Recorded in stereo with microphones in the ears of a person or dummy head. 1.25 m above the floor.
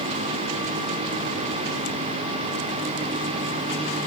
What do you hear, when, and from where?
Only background noise.